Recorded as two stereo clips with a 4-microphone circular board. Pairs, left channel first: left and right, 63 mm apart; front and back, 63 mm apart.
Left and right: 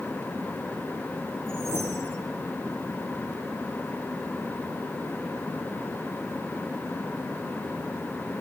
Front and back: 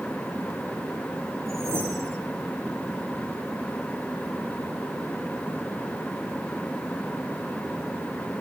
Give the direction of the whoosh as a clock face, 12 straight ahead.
5 o'clock.